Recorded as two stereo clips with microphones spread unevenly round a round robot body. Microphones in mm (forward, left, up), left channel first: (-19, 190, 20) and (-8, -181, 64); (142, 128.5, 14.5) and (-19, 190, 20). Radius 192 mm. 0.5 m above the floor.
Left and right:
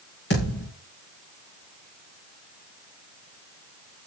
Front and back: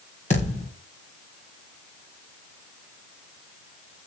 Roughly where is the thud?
Ahead left.